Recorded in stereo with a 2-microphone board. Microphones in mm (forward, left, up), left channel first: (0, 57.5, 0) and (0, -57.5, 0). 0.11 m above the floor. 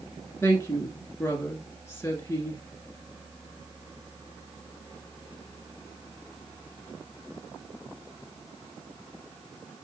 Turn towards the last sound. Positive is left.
turn(degrees=20)  # may be behind; listen again after turning